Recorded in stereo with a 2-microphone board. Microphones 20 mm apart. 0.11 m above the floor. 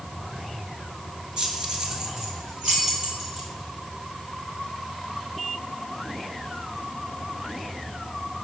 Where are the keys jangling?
35° right (ahead or behind), 1.0 m; by 3.5 s 20° right (ahead or behind), 2 m.